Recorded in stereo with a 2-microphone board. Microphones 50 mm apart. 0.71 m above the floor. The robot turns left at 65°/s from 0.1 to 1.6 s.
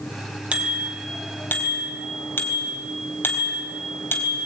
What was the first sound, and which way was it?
A bicycle bell, 155° right.